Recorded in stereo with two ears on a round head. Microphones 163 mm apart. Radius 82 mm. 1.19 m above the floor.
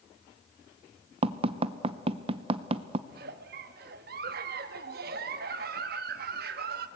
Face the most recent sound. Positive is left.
turn(degrees=-55)  # may be behind; listen again after turning